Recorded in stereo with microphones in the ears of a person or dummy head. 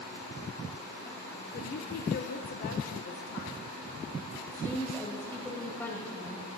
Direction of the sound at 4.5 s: 20° left (ahead or behind).